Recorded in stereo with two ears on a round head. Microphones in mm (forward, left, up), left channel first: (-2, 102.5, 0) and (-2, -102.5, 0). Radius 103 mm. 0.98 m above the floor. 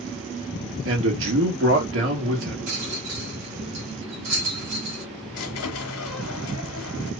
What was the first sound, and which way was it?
A man speaking, 60° right (ahead or behind).